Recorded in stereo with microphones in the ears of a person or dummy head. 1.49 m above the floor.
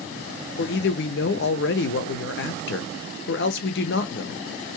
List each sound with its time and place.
0.6 s a man speaking: 55° left (ahead or behind), 0.5 m